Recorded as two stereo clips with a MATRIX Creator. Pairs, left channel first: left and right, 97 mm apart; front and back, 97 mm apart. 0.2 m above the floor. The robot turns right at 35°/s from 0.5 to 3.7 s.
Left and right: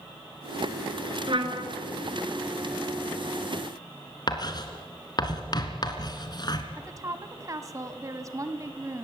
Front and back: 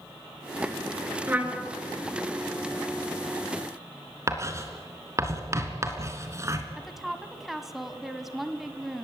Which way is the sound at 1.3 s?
110° right.